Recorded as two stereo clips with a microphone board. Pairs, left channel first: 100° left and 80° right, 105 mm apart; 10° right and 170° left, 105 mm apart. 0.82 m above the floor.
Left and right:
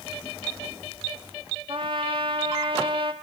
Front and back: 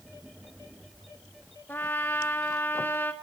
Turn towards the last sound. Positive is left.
turn(degrees=-75)